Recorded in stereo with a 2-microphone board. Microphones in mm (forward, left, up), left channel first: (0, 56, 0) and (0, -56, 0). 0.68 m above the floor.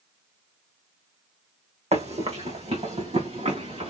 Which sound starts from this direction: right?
Running footsteps, at 1.9 s.